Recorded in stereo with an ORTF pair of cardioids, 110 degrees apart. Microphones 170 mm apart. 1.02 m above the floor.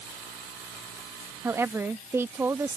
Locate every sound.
1.4 s a woman speaking: 15° right